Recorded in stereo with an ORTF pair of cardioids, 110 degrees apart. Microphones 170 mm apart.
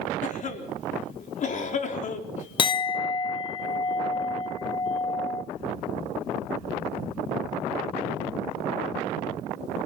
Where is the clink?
30° left, 0.7 m.